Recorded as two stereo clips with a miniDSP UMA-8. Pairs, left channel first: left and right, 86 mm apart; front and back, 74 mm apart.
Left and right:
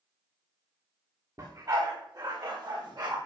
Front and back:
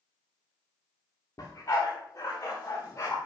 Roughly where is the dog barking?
Ahead right.